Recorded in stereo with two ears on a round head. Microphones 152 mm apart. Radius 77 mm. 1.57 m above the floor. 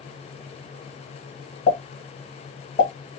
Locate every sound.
1.7 s a pop: 40° left (ahead or behind), 1.8 m